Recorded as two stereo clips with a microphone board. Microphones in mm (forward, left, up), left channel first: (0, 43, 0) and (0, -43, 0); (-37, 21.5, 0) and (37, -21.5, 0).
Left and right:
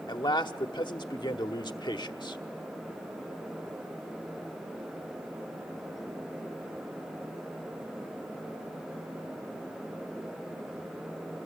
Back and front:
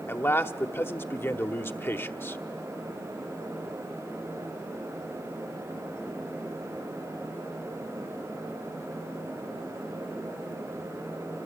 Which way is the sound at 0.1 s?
90° left.